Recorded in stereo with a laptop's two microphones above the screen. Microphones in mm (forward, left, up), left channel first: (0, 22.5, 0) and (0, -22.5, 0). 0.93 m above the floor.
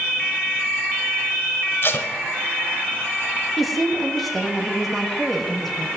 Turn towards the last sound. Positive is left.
turn(degrees=0)  # may be behind; listen again after turning